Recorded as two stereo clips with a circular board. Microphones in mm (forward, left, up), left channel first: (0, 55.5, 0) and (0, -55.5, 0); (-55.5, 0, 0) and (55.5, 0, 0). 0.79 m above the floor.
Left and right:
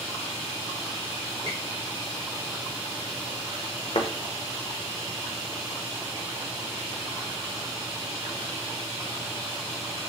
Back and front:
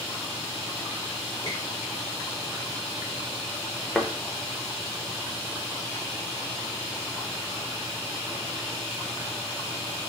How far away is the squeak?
About 1.5 m.